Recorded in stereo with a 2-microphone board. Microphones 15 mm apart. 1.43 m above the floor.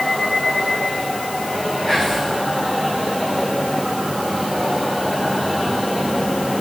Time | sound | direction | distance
1.9 | whispering | 40° left (ahead or behind) | 8.5 m